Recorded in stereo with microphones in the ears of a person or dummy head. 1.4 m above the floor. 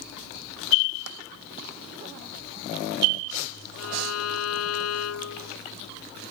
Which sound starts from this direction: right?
Tapping, at 1.1 s.